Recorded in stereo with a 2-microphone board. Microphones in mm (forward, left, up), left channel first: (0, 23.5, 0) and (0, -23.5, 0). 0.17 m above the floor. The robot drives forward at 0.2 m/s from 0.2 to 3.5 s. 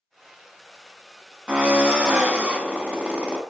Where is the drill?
25° right (ahead or behind), 0.9 m.